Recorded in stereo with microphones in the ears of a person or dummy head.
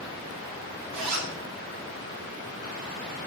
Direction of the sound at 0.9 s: 80° right.